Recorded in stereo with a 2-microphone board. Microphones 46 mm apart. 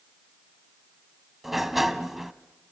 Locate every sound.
1.4 s a sliding door: 5° right (ahead or behind), 0.7 m